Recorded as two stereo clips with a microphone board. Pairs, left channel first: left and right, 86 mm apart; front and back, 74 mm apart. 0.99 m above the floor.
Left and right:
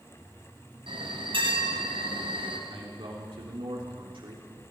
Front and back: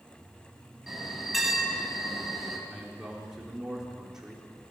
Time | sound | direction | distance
0.9 | a bell | 95° right | 3.5 m
2.7 | a man speaking | 100° right | 3.5 m